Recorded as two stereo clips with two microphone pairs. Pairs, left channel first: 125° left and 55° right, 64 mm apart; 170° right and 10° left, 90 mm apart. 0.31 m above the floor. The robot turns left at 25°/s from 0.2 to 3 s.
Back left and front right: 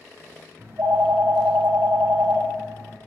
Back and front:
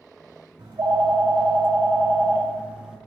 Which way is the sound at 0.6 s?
5° right.